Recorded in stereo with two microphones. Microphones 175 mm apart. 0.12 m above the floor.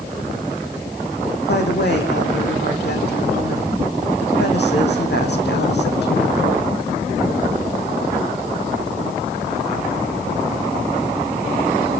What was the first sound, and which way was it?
A woman speaking, 75° left (ahead or behind).